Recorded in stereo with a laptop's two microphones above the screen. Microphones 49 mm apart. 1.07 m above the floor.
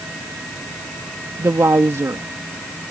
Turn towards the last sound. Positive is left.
turn(degrees=-70)  # may be behind; listen again after turning